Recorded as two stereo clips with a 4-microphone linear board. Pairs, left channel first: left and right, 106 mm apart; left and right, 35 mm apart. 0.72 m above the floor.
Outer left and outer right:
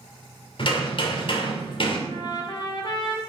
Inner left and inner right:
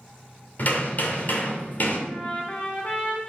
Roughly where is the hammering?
Left.